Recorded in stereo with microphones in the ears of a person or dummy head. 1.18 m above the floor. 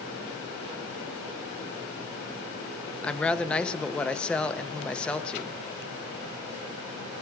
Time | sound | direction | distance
3.0 | a woman speaking | 5° left (ahead or behind) | 0.6 m